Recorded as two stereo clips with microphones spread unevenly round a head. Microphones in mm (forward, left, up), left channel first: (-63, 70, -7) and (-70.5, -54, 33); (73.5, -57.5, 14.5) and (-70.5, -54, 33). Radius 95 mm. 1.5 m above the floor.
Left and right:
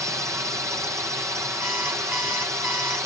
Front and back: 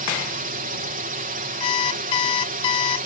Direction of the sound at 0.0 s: 170° right.